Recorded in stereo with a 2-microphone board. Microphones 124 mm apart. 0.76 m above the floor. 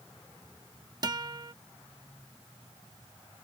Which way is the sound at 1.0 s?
35° right (ahead or behind).